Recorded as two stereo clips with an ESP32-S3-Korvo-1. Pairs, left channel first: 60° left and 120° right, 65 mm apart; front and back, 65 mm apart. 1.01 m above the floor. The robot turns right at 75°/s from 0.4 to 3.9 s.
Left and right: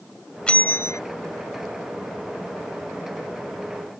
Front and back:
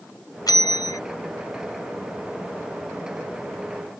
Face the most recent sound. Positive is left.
turn(degrees=-115)